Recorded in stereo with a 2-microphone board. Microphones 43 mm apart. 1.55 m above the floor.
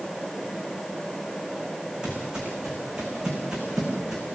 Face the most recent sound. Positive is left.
turn(degrees=-10)  # may be behind; listen again after turning